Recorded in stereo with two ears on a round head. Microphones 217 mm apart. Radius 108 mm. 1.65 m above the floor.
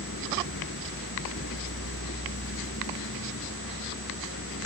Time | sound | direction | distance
0.0 | a vehicle | 50° left (ahead or behind) | ?